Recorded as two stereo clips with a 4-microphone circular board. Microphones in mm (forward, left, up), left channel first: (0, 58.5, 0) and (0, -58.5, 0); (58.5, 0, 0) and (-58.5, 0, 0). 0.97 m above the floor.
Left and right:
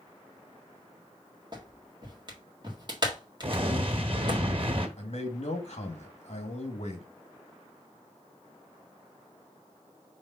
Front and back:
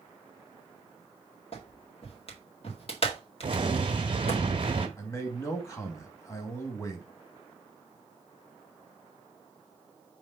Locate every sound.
1.5 s a clap: 40° right, 1.8 m
3.4 s an explosion: 135° right, 1.4 m
5.0 s a man speaking: 65° left, 1.8 m